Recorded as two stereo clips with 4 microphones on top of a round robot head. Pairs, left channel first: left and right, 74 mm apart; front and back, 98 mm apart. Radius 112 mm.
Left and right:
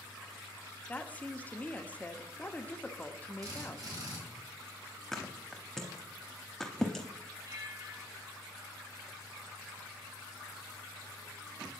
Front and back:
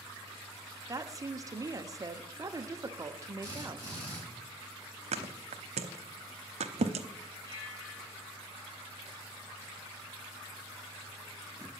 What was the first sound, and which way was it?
A woman speaking, 150° left.